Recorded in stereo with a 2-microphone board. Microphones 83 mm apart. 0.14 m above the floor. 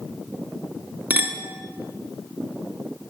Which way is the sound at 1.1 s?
20° right (ahead or behind).